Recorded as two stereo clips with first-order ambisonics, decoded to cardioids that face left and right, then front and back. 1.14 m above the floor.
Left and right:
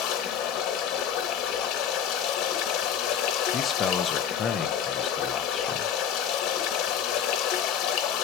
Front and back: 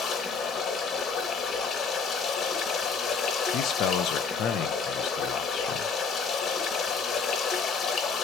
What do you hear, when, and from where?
0.0 s running water: 60° left, 3 m
3.5 s a man speaking: 30° left, 0.9 m